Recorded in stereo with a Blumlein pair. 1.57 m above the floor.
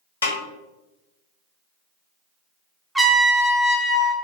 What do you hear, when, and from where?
0.2 s a snare drum: 70° left, 0.8 m
3.0 s a trumpet: 5° right, 0.5 m